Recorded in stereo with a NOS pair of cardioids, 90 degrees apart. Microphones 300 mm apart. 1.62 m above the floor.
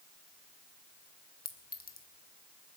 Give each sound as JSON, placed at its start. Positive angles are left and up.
{"t": 1.4, "sound": "a clink", "azimuth_deg": 30, "distance_m": 1.4}